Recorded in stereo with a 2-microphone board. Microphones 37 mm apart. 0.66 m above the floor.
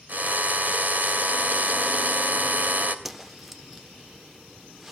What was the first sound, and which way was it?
A drill, 55° right (ahead or behind).